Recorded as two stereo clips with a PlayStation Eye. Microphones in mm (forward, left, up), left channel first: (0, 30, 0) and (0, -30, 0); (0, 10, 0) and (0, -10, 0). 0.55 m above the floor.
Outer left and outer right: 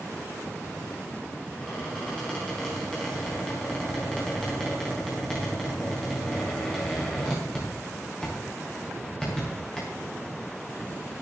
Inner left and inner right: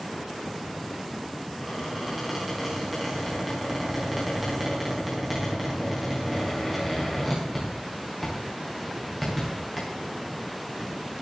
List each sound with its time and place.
1.6 s a squeak: 10° left (ahead or behind), 6 m